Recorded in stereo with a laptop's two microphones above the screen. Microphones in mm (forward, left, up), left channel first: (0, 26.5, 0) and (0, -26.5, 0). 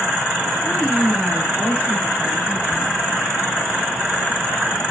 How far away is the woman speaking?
About 4.5 m.